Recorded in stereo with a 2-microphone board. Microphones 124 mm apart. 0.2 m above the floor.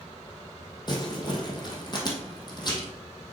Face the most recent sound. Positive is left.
turn(degrees=35)  # may be behind; listen again after turning